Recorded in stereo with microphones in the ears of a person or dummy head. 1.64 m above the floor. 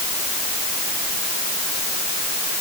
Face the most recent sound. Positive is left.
No sound to turn to.